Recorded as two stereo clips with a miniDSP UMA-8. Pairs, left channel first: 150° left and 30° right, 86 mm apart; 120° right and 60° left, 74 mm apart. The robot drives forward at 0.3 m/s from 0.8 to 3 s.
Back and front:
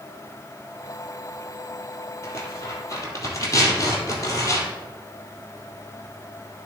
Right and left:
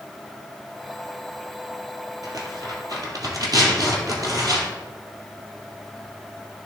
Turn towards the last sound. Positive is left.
turn(degrees=100)